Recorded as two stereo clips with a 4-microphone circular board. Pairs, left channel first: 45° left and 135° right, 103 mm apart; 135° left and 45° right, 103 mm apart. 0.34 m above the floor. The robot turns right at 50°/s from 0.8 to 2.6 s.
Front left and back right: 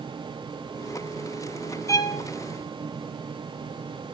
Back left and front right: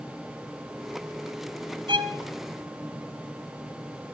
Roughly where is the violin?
Ahead.